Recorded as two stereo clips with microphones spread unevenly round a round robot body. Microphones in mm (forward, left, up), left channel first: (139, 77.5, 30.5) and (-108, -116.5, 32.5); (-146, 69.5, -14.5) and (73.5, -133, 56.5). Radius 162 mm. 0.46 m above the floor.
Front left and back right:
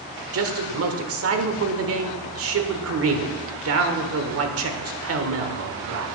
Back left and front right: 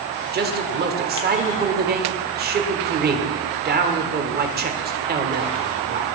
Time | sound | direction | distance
0.3 | a man speaking | 105° right | 1.3 m